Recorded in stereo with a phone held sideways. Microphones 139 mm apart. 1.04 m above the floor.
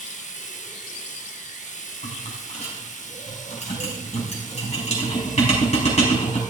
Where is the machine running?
60° left (ahead or behind), 1.2 m.